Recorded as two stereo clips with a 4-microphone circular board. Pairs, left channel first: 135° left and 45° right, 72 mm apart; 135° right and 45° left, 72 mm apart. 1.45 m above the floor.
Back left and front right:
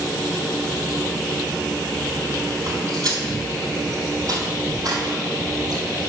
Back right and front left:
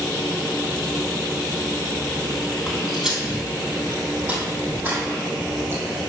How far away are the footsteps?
About 2.5 m.